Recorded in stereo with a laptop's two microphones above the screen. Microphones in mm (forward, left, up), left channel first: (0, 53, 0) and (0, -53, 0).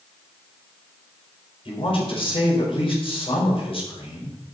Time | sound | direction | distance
1.6 | a woman speaking | 55° left (ahead or behind) | 5 m